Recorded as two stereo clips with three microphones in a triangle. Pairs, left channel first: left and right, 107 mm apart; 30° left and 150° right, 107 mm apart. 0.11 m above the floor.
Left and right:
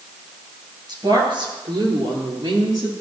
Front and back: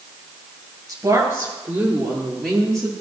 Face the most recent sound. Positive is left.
turn(degrees=-50)